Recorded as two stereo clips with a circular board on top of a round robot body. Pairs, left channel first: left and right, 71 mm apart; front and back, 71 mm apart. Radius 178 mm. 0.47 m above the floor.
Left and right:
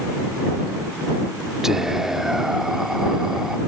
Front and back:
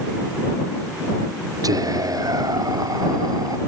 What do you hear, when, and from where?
1.6 s whispering: 175° right